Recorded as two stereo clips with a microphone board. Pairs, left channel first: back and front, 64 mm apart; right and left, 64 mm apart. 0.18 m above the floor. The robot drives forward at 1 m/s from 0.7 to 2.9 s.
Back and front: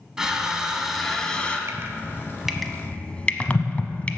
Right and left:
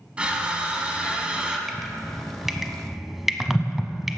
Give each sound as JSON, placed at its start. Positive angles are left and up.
{"t": 0.2, "sound": "crushing", "azimuth_deg": 60, "distance_m": 1.7}
{"t": 1.7, "sound": "dripping", "azimuth_deg": 5, "distance_m": 1.3}